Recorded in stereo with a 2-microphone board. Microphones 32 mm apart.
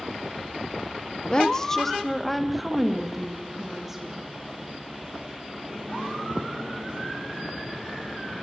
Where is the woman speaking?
25° left (ahead or behind), 1.1 m; by 4.2 s 15° right (ahead or behind), 3.5 m.